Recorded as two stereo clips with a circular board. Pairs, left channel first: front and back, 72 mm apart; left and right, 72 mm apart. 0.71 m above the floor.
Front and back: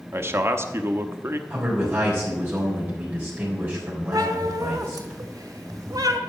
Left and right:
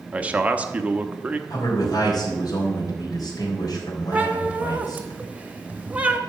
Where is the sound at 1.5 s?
115° left, 4 m.